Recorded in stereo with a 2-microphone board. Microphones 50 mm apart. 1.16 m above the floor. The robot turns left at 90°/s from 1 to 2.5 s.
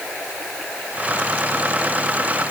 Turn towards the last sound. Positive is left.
No sound to turn to.